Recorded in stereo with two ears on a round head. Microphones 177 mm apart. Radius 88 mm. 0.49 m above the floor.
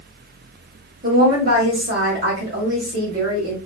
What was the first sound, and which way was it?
A woman speaking, 55° right (ahead or behind).